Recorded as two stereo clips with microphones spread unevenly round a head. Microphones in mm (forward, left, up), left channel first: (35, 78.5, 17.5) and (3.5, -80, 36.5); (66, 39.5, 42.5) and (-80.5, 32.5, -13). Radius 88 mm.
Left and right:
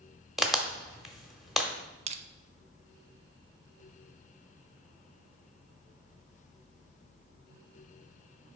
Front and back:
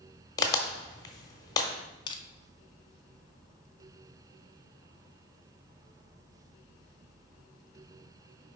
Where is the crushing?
70° right, 0.6 m.